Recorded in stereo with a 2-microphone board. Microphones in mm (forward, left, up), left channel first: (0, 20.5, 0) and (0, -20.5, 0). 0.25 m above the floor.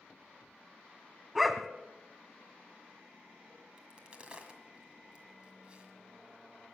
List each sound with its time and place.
1.4 s a dog barking: centre (ahead or behind), 0.7 m
3.8 s a crack: 25° right (ahead or behind), 1.7 m